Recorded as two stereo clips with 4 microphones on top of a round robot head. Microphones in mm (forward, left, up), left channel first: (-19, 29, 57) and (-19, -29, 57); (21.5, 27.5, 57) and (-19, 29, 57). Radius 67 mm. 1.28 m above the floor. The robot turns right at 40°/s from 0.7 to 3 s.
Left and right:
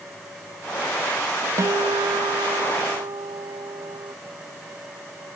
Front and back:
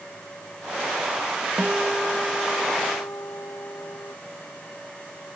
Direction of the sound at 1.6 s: 110° right.